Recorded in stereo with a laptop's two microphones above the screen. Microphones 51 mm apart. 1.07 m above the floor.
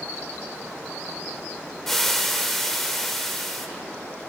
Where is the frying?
5° left (ahead or behind), 0.8 m.